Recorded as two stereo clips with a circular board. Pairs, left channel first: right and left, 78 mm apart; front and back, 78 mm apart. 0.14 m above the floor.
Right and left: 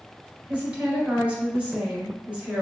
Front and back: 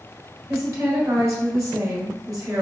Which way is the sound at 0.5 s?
160° left.